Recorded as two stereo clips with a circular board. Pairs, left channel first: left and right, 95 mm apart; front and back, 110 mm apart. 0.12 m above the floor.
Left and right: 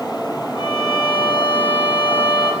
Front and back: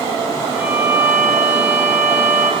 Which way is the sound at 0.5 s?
110° left.